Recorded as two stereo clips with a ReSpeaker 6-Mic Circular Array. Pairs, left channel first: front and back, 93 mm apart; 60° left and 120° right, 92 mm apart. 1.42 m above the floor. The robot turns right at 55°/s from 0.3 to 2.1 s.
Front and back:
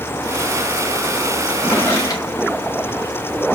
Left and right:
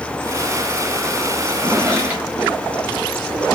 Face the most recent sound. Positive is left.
turn(degrees=-50)